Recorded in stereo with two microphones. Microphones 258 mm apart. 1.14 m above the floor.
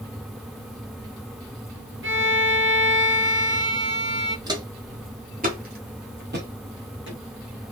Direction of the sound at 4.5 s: 15° right (ahead or behind).